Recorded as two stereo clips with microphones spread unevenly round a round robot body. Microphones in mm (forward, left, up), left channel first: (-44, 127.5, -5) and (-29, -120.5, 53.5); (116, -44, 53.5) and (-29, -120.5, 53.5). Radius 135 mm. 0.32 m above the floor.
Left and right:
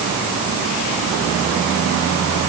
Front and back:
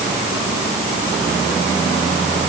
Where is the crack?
I don't hear a crack.